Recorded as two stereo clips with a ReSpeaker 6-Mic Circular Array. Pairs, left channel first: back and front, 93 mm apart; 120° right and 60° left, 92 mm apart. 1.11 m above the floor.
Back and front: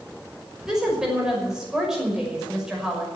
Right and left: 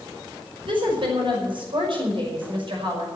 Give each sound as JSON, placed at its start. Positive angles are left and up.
{"t": 0.7, "sound": "a woman speaking", "azimuth_deg": 85, "distance_m": 5.5}